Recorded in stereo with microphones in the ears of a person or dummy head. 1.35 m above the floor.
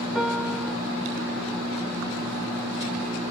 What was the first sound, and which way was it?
A piano, centre (ahead or behind).